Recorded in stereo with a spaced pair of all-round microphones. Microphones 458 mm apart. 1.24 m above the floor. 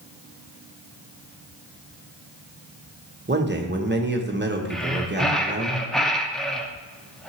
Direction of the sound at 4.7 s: Centre (ahead or behind).